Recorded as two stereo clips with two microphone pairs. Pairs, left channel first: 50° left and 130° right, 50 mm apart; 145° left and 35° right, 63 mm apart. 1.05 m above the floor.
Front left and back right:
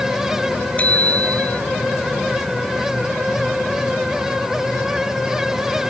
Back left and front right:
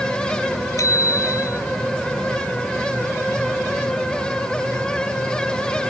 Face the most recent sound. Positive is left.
turn(degrees=110)